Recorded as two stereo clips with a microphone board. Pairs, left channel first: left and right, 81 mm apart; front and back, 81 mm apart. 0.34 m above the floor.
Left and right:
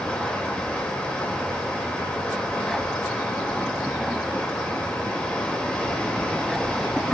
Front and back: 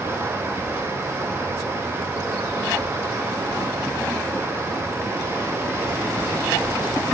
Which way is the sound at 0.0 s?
160° left.